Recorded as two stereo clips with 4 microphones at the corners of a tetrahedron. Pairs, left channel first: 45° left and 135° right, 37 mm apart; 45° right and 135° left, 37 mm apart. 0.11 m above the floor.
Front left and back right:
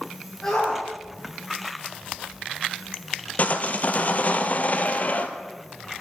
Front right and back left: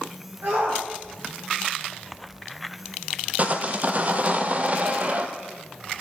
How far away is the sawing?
About 1.3 m.